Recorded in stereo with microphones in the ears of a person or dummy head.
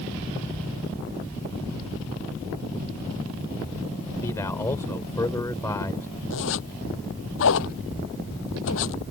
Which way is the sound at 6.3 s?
65° left (ahead or behind).